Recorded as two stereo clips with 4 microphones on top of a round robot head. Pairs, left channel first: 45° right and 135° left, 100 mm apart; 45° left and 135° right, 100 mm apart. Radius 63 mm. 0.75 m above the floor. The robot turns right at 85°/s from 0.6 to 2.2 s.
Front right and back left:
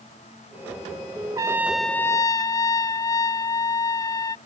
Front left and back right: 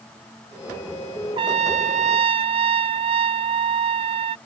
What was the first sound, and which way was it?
A trumpet, 170° right.